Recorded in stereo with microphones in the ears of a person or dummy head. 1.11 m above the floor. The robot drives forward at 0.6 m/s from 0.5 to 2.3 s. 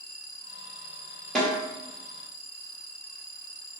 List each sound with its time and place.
1.4 s a snare drum: centre (ahead or behind), 2.5 m